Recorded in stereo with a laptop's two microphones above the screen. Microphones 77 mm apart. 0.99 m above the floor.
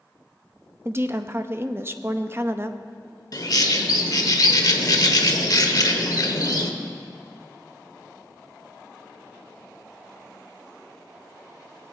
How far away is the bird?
About 1.0 m.